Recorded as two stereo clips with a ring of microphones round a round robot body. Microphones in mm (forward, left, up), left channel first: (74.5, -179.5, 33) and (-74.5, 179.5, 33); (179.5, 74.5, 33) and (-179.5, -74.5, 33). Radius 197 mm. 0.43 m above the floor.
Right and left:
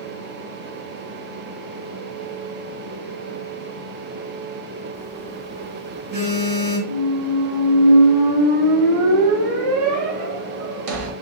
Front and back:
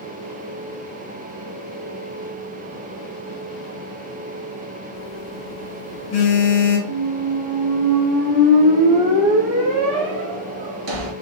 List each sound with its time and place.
4.9 s a phone buzzing: 65° left, 1.4 m
6.9 s a squeak: 160° left, 0.8 m